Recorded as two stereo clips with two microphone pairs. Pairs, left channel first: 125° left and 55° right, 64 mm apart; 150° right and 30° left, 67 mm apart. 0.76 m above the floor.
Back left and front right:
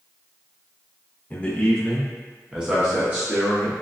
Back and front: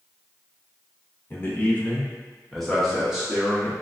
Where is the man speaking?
175° left, 1.0 m; by 3.7 s 35° right, 1.1 m.